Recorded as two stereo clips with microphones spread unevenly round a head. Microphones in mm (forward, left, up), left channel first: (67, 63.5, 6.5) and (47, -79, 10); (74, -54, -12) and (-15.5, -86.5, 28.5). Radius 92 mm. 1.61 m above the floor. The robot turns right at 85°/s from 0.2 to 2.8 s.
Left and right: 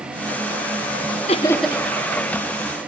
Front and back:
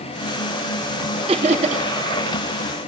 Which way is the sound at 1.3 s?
140° left.